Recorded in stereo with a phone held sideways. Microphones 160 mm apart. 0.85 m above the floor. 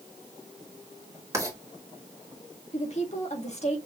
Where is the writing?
20° right (ahead or behind), 1.7 m.